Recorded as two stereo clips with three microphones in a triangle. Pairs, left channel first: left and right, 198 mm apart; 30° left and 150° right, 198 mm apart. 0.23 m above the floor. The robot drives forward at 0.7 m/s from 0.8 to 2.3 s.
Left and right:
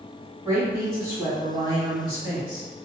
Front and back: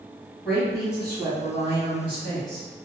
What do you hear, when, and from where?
0.5 s a woman speaking: 65° right, 1.7 m; by 2.7 s 130° right, 1.8 m